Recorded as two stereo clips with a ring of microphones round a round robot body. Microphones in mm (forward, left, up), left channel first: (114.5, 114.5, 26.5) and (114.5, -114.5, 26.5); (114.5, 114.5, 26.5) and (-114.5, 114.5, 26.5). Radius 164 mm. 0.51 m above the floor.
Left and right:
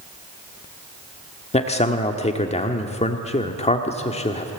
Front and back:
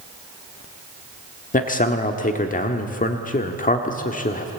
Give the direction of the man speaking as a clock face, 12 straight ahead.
11 o'clock.